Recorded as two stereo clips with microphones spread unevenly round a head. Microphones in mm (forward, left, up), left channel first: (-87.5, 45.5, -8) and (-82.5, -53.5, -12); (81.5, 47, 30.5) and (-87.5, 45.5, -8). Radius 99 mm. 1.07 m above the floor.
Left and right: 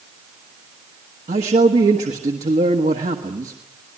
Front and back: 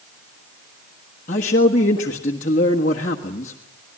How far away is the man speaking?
About 1.4 m.